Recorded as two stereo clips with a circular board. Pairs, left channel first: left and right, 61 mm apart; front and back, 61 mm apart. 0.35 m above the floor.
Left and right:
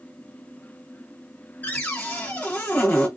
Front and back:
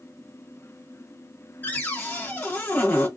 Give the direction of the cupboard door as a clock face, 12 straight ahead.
11 o'clock.